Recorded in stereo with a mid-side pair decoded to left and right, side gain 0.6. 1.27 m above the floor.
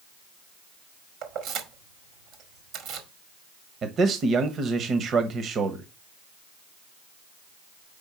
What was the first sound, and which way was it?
Keys jangling, 65° right.